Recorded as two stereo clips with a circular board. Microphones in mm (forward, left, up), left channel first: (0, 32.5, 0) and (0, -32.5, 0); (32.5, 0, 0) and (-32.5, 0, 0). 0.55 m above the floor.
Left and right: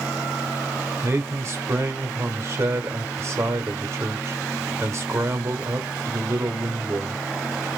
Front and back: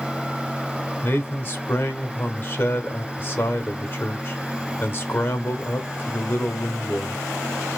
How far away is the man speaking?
About 1.6 m.